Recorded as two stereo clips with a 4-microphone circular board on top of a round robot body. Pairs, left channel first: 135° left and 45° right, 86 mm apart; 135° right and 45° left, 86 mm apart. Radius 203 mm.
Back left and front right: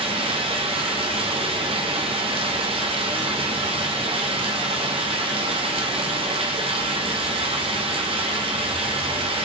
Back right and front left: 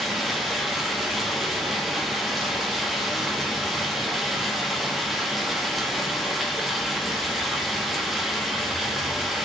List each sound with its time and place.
0.0 s running water: 45° right, 1.0 m